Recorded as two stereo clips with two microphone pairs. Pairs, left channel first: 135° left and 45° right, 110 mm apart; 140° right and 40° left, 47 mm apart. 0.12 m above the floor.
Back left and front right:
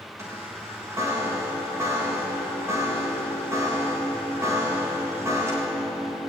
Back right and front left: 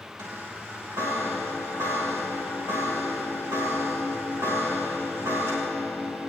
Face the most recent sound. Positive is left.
turn(degrees=25)